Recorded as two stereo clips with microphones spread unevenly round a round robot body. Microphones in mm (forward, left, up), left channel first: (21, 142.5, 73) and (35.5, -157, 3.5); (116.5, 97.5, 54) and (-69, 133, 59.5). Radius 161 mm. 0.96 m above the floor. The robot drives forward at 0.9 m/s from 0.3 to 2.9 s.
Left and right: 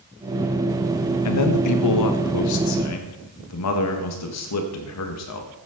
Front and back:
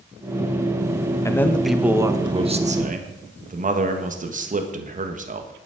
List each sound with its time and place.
1.2 s a man speaking: 60° left, 1.4 m; by 5.5 s 130° left, 1.6 m